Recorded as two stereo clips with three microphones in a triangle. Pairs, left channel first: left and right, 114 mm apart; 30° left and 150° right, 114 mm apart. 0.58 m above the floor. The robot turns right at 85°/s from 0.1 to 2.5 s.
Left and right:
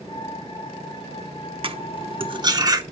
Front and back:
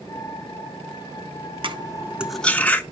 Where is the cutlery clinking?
120° right, 0.7 m; by 2.8 s 45° right, 0.7 m.